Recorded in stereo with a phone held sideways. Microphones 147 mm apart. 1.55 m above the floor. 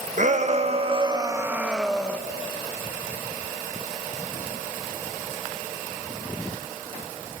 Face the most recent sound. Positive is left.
turn(degrees=10)  # may be behind; listen again after turning